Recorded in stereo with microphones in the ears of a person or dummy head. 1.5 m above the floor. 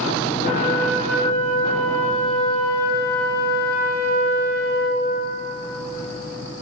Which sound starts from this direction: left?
A flute, at 0.4 s.